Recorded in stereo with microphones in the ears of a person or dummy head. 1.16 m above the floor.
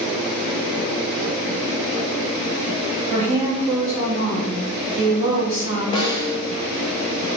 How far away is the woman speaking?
About 1.7 m.